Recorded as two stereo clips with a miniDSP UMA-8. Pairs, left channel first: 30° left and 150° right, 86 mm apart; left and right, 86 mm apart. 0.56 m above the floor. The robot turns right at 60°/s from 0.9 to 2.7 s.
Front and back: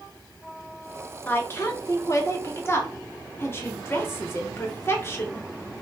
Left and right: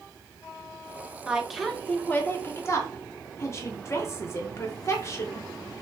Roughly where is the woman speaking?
Ahead.